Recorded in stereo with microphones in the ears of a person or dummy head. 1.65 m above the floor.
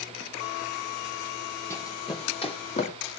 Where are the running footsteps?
10° left (ahead or behind), 3.5 m; by 2.9 s 35° left (ahead or behind), 4 m.